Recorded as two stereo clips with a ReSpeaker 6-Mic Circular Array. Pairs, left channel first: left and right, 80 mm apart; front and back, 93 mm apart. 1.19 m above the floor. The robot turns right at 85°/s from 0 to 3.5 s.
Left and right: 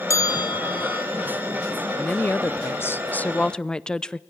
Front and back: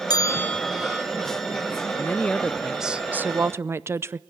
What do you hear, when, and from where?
0.1 s a bell: 40° left, 0.6 m; by 1.1 s 120° left, 0.6 m
2.0 s a woman speaking: 30° left, 0.6 m; by 4.2 s 160° left, 0.6 m